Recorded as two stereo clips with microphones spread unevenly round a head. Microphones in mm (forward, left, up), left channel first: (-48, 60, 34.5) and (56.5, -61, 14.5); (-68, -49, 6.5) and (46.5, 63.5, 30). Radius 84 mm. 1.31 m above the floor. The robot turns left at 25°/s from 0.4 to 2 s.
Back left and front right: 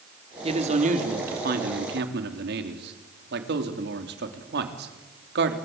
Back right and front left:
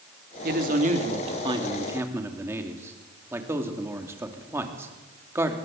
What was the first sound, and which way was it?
A man speaking, 5° left.